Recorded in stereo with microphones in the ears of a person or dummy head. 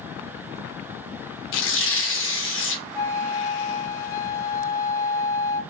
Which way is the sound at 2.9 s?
15° left (ahead or behind).